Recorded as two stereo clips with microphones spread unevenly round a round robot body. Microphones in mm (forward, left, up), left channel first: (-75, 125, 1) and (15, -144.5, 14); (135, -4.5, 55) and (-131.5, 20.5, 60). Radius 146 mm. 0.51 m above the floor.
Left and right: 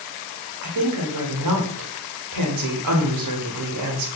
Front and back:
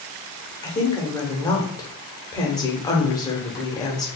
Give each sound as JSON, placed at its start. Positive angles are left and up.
{"t": 0.6, "sound": "a woman speaking", "azimuth_deg": -80, "distance_m": 1.2}